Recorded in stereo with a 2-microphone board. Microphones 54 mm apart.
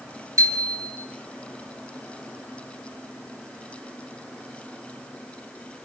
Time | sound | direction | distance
0.4 | a bicycle bell | 75° right (ahead or behind) | 4.5 m